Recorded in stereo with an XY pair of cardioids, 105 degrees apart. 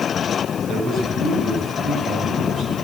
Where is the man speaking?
65° right, 6.5 m.